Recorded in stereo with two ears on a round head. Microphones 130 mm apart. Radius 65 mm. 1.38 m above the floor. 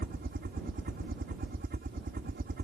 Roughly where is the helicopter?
Right.